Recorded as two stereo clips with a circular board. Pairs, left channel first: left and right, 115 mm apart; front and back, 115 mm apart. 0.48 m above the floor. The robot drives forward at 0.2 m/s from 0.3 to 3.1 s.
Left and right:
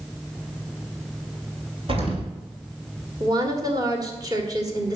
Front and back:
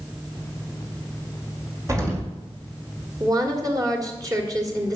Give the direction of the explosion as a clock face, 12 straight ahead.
4 o'clock.